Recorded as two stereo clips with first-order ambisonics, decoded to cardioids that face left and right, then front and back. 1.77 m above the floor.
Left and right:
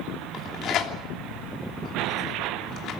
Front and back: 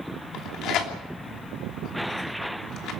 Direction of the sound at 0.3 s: 45° left.